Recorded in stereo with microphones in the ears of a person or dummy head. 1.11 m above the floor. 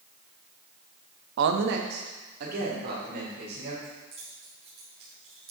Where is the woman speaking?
70° right (ahead or behind), 0.6 m; by 3.7 s 60° right (ahead or behind), 4 m.